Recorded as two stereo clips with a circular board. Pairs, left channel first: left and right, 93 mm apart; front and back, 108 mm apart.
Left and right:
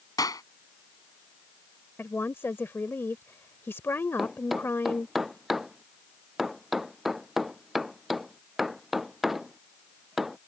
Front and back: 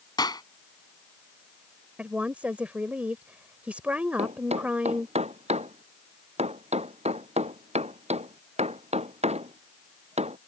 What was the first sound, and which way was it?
A clap, 45° left.